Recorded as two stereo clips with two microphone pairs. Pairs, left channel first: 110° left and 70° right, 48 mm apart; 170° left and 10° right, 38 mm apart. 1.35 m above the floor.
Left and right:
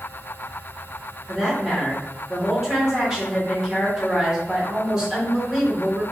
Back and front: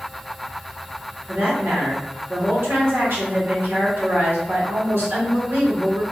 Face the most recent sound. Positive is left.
turn(degrees=5)